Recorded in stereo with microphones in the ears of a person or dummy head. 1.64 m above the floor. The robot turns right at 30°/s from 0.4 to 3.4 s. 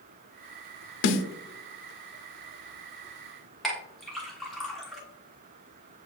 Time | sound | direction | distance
1.0 | a snare drum | 70° left (ahead or behind) | 0.5 m
3.6 | a clink | centre (ahead or behind) | 1.5 m